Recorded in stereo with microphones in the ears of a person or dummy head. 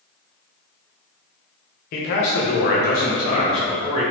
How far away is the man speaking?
About 0.6 m.